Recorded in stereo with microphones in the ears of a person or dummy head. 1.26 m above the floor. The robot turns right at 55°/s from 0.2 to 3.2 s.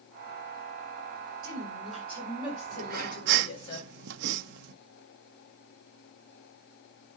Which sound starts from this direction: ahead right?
A woman speaking, at 1.4 s.